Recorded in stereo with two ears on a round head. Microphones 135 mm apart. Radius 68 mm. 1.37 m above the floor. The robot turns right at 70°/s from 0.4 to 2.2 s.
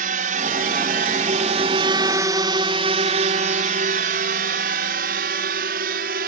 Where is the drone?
60° right (ahead or behind); by 6.3 s 70° right (ahead or behind).